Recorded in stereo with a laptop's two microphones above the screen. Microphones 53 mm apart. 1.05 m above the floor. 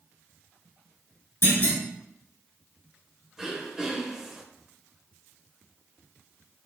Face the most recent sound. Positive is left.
turn(degrees=-10)  # may be behind; listen again after turning